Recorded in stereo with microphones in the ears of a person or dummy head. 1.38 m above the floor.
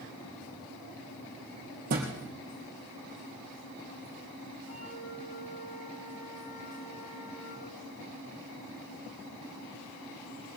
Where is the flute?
85° left, 7.5 m.